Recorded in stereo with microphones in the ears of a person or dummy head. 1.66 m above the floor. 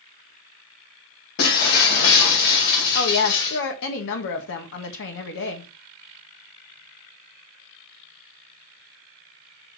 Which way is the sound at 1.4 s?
55° left (ahead or behind).